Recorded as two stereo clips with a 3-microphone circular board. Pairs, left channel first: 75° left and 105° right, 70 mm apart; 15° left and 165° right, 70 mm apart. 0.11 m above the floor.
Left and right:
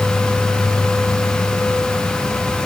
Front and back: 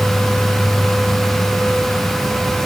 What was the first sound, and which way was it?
Only background noise.